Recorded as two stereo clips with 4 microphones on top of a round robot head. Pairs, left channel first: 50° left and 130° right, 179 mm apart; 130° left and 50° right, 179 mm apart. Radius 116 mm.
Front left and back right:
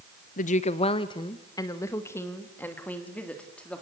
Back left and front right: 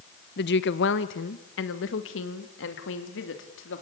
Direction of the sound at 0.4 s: 95° left.